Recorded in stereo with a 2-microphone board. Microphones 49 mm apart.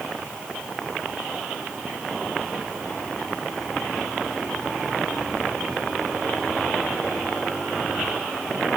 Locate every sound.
Only background noise.